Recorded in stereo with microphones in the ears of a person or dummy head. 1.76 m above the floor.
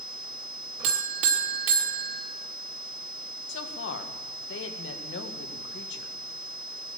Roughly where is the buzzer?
Right.